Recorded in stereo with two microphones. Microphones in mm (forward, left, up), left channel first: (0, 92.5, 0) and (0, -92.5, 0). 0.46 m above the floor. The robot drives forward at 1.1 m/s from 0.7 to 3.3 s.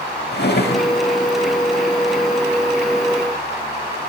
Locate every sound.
0.3 s a drawer: 65° left (ahead or behind), 0.7 m; by 0.9 s 50° left (ahead or behind), 0.8 m